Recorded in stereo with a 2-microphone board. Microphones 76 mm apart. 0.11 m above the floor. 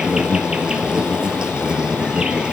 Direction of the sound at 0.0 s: 10° right (ahead or behind).